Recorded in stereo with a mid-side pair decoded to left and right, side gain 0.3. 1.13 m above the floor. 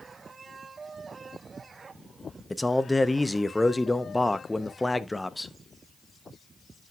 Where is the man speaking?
15° left, 1.1 m.